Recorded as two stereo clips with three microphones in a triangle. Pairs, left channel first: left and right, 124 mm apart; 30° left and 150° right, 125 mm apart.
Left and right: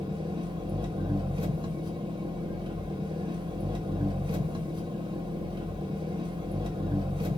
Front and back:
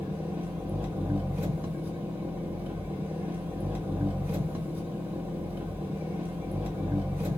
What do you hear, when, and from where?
0.0 s an engine running: 85° right, 0.8 m